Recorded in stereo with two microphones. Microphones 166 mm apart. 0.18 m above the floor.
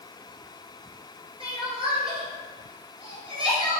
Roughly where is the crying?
Right.